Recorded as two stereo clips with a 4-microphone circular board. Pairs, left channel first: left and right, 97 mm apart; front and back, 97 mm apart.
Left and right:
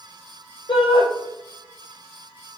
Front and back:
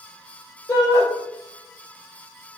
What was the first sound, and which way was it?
A shout, 55° left.